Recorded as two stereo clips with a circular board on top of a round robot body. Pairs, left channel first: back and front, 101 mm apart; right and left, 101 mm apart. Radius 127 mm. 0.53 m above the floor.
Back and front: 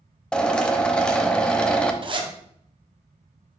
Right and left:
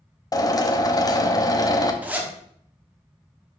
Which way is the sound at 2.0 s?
20° left.